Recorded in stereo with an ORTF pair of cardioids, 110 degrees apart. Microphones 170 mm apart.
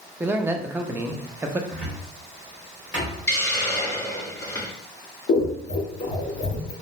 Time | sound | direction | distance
0.2 | a man speaking | 15° right | 0.5 m
1.7 | a cupboard door | 10° right | 1.7 m
3.3 | a hiss | 15° left | 1.4 m
5.3 | scissors | 40° left | 0.9 m